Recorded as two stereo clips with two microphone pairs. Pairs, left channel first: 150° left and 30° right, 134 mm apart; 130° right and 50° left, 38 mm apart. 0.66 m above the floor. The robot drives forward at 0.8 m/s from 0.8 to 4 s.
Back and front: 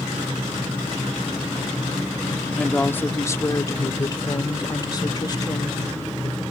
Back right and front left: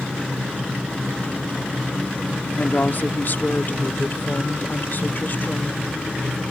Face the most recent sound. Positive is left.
turn(degrees=-155)